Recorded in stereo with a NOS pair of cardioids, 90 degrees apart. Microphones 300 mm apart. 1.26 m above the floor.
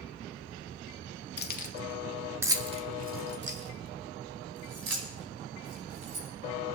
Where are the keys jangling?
35° left, 1.7 m; by 6.3 s 60° right, 5.5 m.